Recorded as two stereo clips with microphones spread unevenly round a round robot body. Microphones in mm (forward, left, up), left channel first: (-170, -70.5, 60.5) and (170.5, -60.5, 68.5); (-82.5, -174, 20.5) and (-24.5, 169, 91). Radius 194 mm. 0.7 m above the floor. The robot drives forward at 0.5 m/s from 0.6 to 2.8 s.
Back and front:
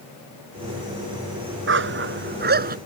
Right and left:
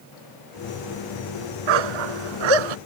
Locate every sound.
1.7 s a dog barking: 60° left; by 2.8 s 70° left